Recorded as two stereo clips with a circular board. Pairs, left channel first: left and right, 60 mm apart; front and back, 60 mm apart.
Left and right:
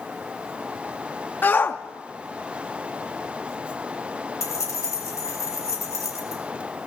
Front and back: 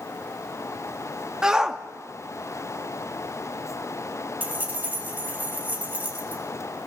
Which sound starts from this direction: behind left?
Keys jangling, at 4.4 s.